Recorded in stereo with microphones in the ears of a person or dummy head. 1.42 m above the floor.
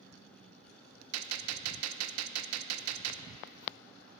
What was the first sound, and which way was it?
A gunshot, 75° right (ahead or behind).